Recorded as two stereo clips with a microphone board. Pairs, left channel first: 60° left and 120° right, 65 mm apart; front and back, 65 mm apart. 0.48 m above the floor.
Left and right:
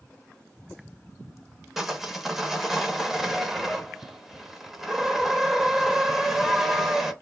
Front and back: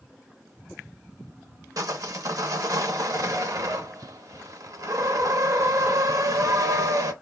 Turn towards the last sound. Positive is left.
turn(degrees=155)